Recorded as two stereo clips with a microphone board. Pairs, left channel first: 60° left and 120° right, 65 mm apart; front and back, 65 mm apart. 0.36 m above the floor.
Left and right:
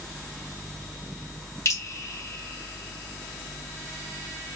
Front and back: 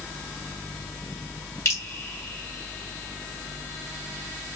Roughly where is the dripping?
Ahead left.